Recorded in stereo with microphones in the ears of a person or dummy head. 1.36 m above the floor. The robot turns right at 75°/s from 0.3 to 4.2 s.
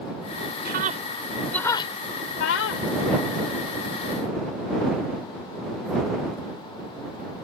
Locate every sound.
0.7 s a scream: 55° right (ahead or behind); by 2.9 s 70° left (ahead or behind)